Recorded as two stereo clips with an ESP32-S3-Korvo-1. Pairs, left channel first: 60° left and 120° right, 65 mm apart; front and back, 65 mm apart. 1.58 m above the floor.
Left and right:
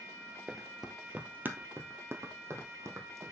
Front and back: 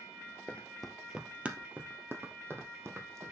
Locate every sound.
0.5 s running footsteps: 15° right, 1.6 m; by 3.3 s 145° right, 3.5 m